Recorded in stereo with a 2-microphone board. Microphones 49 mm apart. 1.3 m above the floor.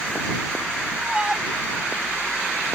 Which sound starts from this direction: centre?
A shout, at 1.0 s.